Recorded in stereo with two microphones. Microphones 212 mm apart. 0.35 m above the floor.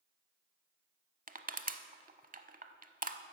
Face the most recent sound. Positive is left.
turn(degrees=-40)  # may be behind; listen again after turning